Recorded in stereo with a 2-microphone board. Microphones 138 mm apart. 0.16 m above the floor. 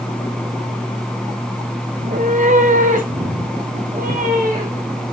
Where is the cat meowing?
60° right (ahead or behind), 1.1 m; by 5.0 s 65° right (ahead or behind), 4 m.